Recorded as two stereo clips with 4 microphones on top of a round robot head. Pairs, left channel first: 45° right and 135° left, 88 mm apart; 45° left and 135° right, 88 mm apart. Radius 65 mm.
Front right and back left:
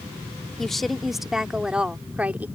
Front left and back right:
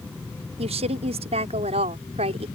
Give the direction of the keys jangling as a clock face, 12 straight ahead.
No keys jangling in this recording.